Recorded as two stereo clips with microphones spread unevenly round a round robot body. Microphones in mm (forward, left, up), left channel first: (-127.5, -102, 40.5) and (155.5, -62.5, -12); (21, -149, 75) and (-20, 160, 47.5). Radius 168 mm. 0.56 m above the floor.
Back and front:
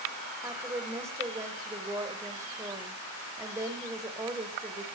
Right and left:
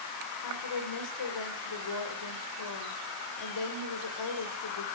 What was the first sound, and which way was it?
A woman speaking, 70° right.